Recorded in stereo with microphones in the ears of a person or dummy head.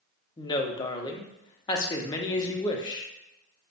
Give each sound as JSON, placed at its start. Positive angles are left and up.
{"t": 0.4, "sound": "a woman speaking", "side_deg": 25, "distance_m": 0.6}